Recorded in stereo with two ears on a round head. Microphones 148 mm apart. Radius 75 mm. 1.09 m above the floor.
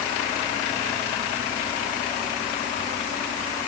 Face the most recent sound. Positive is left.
No sound to turn to.